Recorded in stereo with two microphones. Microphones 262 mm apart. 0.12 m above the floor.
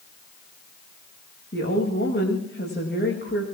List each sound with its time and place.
1.5 s a woman speaking: 40° left (ahead or behind), 10 m